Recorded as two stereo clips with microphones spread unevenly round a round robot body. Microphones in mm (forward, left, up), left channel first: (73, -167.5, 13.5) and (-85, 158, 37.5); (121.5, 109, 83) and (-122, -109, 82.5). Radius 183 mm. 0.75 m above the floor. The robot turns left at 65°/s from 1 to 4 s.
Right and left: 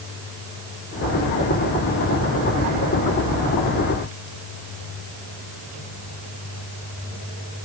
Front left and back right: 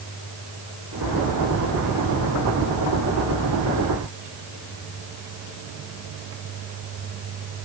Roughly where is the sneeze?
I don't hear a sneeze.